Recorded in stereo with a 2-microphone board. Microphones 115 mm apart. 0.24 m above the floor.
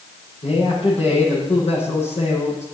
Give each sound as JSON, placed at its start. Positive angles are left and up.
{"t": 0.4, "sound": "a man speaking", "side_deg": 70, "distance_m": 9.5}